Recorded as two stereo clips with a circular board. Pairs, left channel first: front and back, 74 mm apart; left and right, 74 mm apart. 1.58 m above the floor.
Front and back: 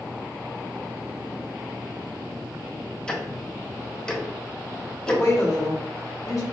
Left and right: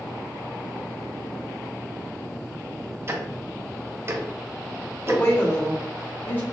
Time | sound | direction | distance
3.1 | ticking | 70° right | 0.6 m
5.1 | a woman speaking | 35° left | 1.1 m